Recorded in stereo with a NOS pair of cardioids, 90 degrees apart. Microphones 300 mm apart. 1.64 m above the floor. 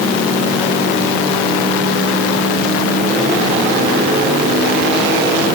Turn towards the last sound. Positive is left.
No sound to turn to.